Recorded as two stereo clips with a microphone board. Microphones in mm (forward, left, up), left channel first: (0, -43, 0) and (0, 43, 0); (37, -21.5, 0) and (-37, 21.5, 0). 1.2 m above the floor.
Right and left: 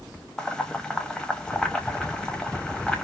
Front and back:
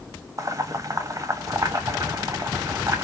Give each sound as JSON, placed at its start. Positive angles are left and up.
{"t": 0.4, "sound": "boiling", "azimuth_deg": -170, "distance_m": 0.7}